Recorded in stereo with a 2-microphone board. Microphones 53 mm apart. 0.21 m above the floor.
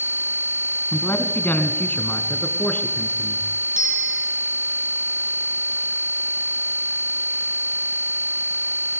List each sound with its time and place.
0.9 s a man speaking: 40° left (ahead or behind), 1.9 m; by 3.5 s 30° left (ahead or behind), 3 m
3.8 s a bicycle bell: 15° right (ahead or behind), 6.5 m